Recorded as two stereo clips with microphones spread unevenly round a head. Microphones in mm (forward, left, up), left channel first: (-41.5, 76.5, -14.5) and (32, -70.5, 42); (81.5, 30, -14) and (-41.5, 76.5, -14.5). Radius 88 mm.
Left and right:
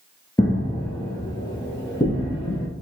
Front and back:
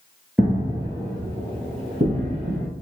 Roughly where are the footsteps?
Behind right.